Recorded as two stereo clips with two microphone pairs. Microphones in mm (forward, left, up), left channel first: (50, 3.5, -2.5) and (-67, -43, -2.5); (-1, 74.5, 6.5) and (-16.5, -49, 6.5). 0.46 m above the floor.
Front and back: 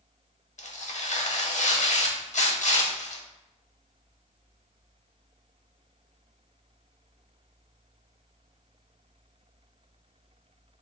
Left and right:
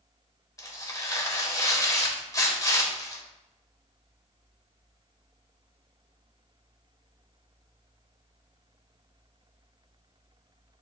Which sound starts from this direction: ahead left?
Tearing paper, at 0.6 s.